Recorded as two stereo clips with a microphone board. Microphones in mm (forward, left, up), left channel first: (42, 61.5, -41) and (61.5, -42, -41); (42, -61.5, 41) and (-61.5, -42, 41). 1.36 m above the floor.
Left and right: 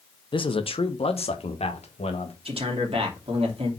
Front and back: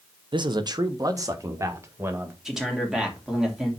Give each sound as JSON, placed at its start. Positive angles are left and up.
{"t": 0.3, "sound": "a man speaking", "azimuth_deg": 135, "distance_m": 0.8}
{"t": 2.5, "sound": "a man speaking", "azimuth_deg": -105, "distance_m": 2.5}